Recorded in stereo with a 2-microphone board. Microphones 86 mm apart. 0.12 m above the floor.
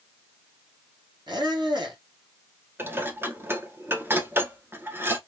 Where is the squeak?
60° right (ahead or behind), 2 m.